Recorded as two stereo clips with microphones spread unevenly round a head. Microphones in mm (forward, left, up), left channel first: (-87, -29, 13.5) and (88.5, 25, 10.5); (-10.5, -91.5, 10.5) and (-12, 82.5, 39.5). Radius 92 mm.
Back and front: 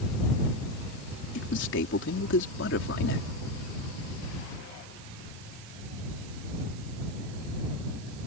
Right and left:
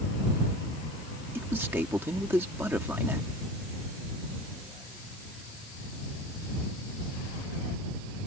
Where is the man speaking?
170° left.